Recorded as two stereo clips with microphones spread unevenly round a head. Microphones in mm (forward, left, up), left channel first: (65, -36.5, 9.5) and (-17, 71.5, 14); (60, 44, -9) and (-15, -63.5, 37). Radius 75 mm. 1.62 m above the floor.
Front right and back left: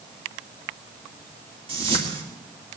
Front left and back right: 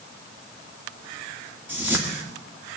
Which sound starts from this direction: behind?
A whoosh, at 1.7 s.